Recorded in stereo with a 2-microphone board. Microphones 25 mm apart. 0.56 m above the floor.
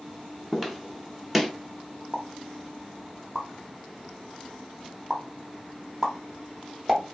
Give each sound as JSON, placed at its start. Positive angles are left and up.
{"t": 0.5, "sound": "footsteps", "side_deg": -5, "distance_m": 0.7}
{"t": 2.1, "sound": "a pop", "side_deg": -20, "distance_m": 0.9}